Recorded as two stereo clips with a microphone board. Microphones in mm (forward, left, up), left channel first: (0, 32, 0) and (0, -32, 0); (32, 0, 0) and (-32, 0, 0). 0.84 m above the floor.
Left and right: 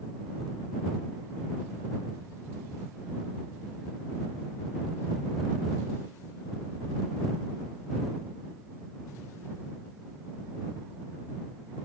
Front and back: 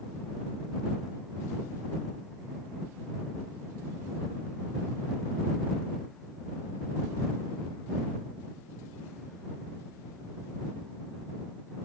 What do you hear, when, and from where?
Only background noise.